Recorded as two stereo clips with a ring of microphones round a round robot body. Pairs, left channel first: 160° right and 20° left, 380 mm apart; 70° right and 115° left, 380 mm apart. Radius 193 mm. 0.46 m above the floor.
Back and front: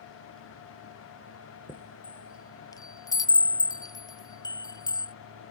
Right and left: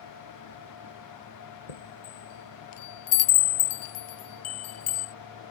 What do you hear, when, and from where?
1.7 s a chime: 75° right